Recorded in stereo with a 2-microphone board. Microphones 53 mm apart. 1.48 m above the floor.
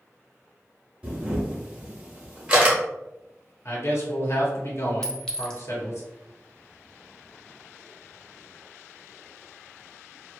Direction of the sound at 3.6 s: 55° left (ahead or behind).